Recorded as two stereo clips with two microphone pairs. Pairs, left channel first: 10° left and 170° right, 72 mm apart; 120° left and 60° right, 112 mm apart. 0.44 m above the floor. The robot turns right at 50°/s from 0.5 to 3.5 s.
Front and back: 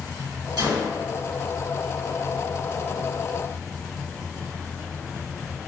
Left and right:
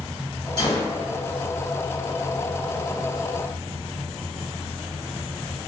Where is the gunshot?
175° left, 1.5 m; by 0.9 s 165° right, 1.5 m.